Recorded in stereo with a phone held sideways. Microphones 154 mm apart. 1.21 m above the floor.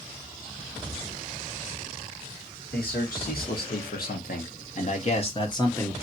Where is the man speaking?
80° left, 1.8 m; by 5.9 s 15° left (ahead or behind), 0.8 m.